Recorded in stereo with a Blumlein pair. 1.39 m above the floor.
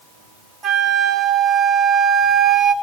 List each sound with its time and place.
0.6 s a flute: 20° right, 2.0 m